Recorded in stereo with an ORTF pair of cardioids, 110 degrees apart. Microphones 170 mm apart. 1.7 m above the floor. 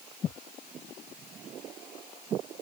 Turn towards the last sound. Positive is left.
No sound to turn to.